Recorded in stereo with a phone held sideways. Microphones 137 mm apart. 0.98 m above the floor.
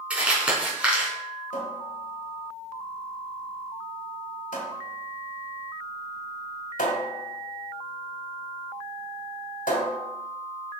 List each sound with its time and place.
0.1 s crumpling: 10° right (ahead or behind), 3 m
1.5 s a cupboard door: 85° left, 1.9 m